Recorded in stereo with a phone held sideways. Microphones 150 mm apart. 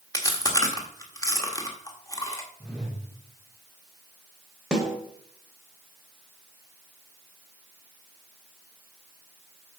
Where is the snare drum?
5° right (ahead or behind), 1.7 m.